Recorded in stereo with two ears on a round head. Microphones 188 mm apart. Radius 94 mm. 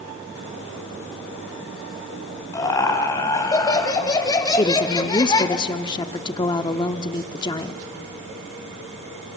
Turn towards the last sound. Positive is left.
turn(degrees=20)  # may be behind; listen again after turning